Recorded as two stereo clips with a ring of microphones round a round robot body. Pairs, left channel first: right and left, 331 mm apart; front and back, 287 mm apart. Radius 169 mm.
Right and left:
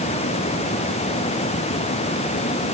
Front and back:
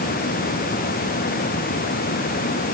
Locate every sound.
Only background noise.